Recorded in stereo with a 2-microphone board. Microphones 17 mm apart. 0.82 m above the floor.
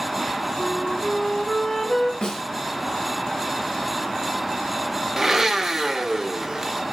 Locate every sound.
0.6 s a flute: 35° left (ahead or behind), 1.0 m
2.2 s a snare drum: 60° left (ahead or behind), 1.6 m
5.2 s a blender: 25° right (ahead or behind), 0.6 m